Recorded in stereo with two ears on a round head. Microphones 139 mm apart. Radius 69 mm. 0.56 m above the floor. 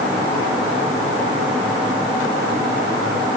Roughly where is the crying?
I don't hear crying.